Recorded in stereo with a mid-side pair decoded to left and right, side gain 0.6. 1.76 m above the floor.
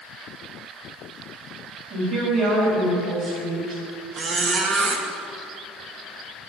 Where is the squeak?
40° right, 2 m.